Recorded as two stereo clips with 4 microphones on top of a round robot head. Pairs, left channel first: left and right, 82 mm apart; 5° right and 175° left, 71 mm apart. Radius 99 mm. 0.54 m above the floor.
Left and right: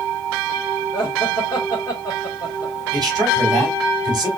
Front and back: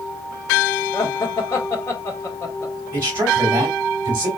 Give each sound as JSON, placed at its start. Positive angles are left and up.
{"t": 0.9, "sound": "laughter", "azimuth_deg": 35, "distance_m": 2.0}
{"t": 2.9, "sound": "a man speaking", "azimuth_deg": -125, "distance_m": 3.5}